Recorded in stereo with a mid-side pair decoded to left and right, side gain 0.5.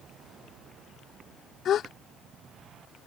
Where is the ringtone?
No ringtone in this recording.